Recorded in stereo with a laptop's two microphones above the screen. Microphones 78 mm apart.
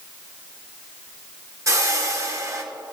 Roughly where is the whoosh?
Right.